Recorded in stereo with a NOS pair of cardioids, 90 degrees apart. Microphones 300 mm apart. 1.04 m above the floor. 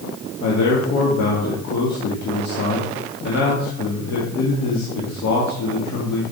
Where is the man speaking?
65° left, 1.8 m.